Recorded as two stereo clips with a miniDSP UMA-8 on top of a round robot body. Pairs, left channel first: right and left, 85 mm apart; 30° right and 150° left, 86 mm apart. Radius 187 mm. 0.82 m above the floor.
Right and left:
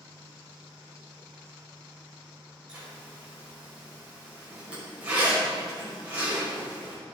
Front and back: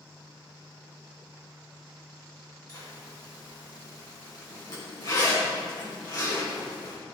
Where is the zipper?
15° left, 5.5 m.